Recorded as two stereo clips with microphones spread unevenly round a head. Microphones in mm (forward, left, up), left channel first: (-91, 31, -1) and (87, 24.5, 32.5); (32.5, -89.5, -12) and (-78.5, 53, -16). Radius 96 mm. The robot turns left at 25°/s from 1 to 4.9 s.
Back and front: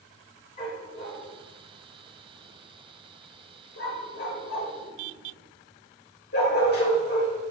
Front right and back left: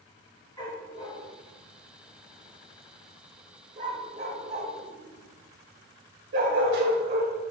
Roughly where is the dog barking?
Behind right.